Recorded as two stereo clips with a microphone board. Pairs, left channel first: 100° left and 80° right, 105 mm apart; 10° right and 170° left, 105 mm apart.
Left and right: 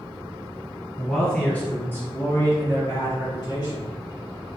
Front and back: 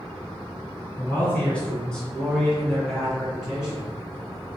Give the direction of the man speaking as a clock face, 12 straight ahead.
11 o'clock.